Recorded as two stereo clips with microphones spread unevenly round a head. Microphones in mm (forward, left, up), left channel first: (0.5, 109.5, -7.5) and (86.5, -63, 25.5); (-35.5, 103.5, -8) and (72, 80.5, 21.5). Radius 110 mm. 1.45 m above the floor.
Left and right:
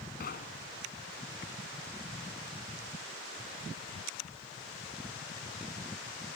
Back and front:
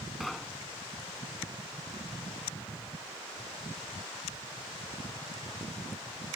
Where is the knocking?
75° left.